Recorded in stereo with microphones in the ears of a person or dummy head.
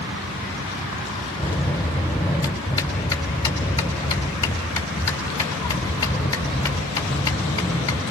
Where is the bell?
15° left (ahead or behind), 4 m.